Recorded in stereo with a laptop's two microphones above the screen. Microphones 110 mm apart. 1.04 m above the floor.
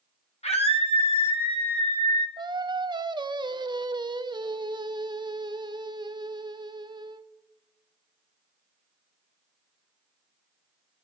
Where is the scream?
70° left (ahead or behind), 1.6 m; by 2.3 s 55° left (ahead or behind), 2.5 m.